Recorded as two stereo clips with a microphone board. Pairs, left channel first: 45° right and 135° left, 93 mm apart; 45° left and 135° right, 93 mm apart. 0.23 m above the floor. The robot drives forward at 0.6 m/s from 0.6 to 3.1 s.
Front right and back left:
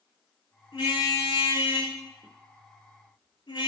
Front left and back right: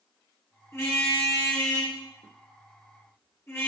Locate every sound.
0.7 s a car horn: 15° right, 9.5 m